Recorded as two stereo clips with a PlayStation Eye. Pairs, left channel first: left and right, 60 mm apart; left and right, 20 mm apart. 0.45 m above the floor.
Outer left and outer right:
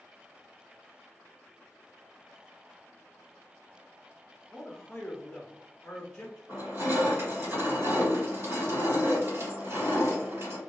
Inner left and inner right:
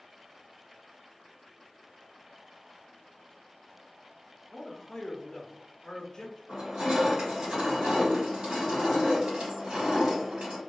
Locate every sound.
4.5 s a man speaking: 10° left (ahead or behind), 0.8 m
6.5 s crushing: 45° right (ahead or behind), 1.6 m